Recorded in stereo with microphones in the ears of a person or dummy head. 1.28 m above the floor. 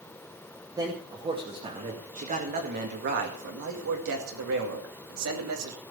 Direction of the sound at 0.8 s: 15° right (ahead or behind).